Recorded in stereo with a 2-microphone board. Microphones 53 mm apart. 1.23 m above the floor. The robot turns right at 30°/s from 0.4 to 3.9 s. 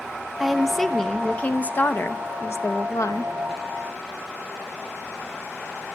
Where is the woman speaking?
5° right, 1.0 m; by 3.3 s 85° left, 1.0 m.